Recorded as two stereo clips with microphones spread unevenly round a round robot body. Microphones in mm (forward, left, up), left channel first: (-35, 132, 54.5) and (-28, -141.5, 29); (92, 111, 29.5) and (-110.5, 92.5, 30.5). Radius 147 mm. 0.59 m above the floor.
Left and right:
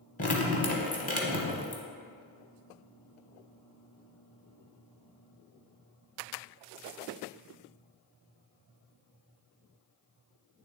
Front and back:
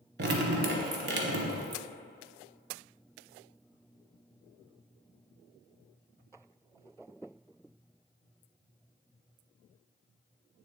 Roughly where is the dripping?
Behind left.